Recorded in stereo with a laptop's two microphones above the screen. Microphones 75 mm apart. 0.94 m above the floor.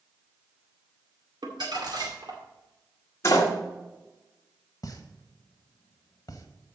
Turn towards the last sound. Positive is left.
turn(degrees=55)  # may be behind; listen again after turning